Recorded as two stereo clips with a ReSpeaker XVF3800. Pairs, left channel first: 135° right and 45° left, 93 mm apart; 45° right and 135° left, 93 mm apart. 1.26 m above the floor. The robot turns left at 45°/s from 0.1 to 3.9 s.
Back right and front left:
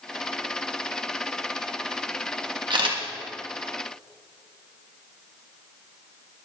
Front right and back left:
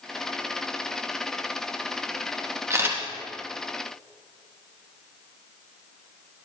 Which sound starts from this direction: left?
A camera shutter, at 2.7 s.